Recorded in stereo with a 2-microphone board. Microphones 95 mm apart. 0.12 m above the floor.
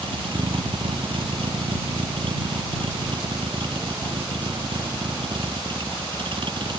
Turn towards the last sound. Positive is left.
turn(degrees=-55)  # may be behind; listen again after turning